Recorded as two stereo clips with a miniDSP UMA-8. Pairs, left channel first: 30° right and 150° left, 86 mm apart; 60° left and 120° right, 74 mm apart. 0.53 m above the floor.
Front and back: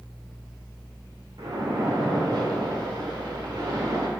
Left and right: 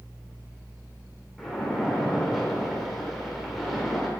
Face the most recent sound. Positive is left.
turn(degrees=155)